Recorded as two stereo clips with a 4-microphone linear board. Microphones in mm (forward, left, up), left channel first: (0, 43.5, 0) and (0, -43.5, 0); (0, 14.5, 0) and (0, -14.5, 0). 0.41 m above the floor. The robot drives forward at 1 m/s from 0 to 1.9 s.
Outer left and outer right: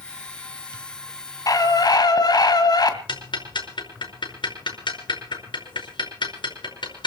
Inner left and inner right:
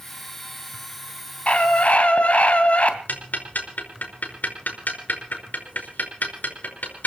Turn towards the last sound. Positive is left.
turn(degrees=65)  # may be behind; listen again after turning